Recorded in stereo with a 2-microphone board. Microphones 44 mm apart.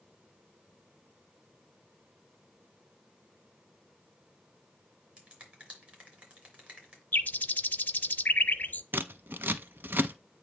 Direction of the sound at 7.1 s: 40° left (ahead or behind).